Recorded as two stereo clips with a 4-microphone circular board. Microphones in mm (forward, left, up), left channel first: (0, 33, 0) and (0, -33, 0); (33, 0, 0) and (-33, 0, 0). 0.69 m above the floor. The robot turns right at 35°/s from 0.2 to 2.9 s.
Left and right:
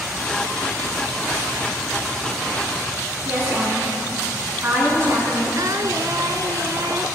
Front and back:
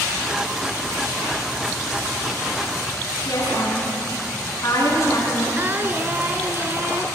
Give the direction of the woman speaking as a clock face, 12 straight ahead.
1 o'clock.